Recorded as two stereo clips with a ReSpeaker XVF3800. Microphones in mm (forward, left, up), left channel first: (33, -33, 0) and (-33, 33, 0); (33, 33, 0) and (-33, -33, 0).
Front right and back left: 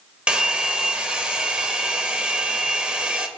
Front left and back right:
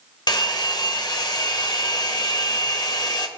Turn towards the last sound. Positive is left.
turn(degrees=60)